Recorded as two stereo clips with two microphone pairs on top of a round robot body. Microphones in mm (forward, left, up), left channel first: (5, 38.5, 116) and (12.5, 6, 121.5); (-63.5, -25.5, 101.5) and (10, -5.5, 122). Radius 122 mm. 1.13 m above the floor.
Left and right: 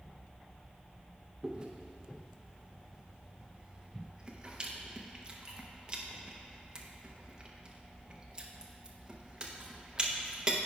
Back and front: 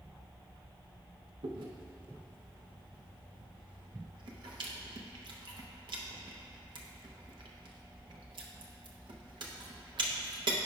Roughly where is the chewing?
Ahead.